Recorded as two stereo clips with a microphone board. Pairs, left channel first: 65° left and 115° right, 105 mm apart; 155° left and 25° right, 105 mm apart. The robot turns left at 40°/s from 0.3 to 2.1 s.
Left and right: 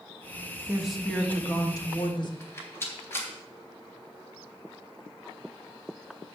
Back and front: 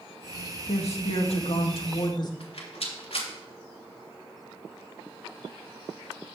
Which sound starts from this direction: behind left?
A rattle, at 2.4 s.